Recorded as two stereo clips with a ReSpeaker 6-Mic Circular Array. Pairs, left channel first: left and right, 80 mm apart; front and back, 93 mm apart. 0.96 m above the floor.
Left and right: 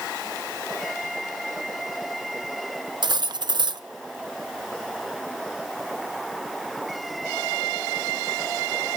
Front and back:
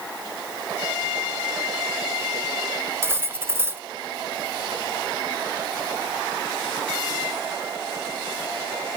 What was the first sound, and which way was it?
Cutlery clinking, 115° right.